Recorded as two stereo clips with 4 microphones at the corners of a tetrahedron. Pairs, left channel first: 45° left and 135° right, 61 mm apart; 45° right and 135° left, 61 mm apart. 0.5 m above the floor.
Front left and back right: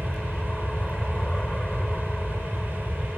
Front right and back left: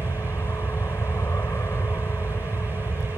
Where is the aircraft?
30° right.